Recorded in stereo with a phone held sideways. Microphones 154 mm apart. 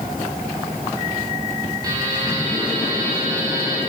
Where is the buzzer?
25° right (ahead or behind), 9 m.